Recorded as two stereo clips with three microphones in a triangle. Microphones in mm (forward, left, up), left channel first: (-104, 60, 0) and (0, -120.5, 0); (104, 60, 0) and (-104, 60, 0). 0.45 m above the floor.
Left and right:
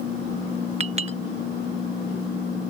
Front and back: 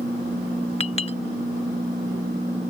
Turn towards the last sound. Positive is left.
turn(degrees=-30)